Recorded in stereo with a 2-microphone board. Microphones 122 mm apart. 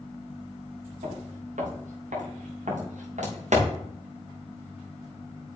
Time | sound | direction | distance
1.0 | footsteps | 85° right | 5.5 m